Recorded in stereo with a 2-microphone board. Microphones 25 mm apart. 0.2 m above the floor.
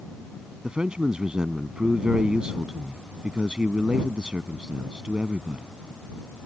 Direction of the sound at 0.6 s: 40° right (ahead or behind).